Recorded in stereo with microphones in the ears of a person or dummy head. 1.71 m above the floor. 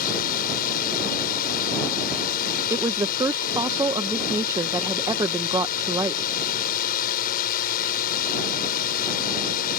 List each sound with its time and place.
0.0 s a drone: 50° left (ahead or behind)
2.7 s a woman speaking: 20° right (ahead or behind)